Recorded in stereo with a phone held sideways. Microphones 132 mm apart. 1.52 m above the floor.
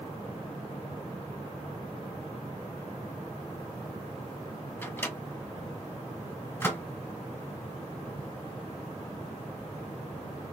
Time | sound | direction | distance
4.8 | a microwave | 15° left (ahead or behind) | 0.9 m